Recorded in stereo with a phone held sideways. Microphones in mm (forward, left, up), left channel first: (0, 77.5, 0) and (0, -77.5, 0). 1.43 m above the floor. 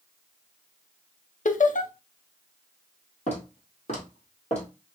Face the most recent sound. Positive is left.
turn(degrees=50)  # may be behind; listen again after turning